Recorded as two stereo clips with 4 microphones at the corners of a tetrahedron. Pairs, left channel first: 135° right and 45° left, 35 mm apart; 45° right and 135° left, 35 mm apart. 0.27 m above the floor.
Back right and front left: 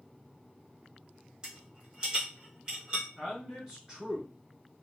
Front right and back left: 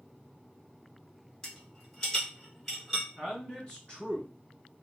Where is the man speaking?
15° right, 1.9 m.